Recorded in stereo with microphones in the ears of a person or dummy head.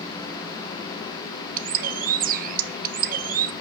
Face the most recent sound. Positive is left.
turn(degrees=-45)  # may be behind; listen again after turning